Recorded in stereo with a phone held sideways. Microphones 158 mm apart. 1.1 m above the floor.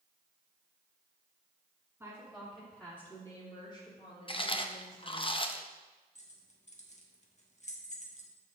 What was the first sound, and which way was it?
A woman speaking, 10° right (ahead or behind).